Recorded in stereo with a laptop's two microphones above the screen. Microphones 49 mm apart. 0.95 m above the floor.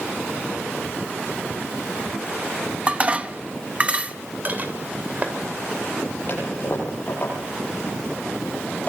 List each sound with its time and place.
2.9 s dishes clattering: 25° right (ahead or behind), 0.7 m
4.5 s dishes clattering: 35° right (ahead or behind), 2.5 m
6.3 s a toilet flushing: 35° left (ahead or behind), 9 m